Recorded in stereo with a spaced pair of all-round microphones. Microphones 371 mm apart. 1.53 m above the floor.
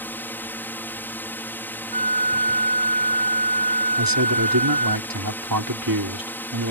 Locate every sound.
0.0 s a drone: 5° left (ahead or behind)
1.9 s a flute: 85° right
4.0 s a man speaking: 65° right (ahead or behind)